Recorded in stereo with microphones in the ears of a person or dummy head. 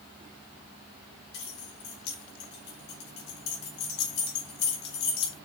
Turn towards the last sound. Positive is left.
turn(degrees=65)  # may be behind; listen again after turning